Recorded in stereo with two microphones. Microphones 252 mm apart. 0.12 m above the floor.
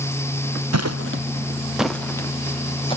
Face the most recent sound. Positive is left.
turn(degrees=20)  # may be behind; listen again after turning